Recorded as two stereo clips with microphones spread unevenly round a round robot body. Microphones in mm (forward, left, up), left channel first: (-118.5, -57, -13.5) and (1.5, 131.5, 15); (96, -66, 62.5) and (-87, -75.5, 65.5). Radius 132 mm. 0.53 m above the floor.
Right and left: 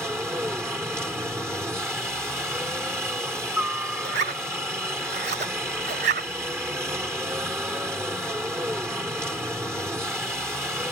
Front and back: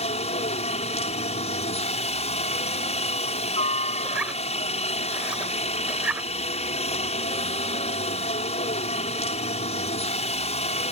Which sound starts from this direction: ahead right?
A helicopter, at 0.0 s.